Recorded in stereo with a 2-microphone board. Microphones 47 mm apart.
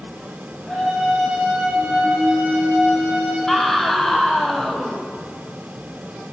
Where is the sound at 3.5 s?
5° left (ahead or behind), 4 m.